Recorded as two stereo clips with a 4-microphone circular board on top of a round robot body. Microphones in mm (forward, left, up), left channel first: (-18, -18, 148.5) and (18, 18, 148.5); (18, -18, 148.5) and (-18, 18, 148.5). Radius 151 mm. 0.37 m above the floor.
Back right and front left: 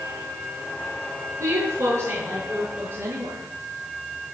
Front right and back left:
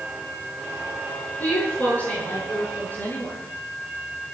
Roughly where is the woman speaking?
Ahead.